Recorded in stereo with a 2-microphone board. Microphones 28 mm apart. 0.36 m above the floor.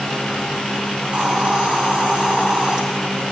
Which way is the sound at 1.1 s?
40° right (ahead or behind).